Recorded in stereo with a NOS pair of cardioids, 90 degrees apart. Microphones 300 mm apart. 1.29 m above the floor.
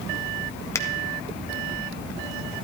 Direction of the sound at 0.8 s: 10° left.